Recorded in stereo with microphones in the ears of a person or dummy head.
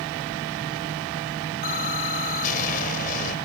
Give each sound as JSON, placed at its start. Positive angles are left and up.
{"t": 1.6, "sound": "an explosion", "side_deg": 45}